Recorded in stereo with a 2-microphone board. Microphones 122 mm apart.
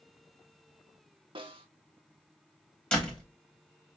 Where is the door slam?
10° left (ahead or behind), 1.2 m.